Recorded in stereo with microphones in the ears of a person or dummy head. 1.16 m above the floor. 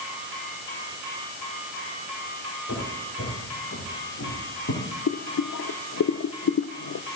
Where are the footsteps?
75° left (ahead or behind), 8.5 m.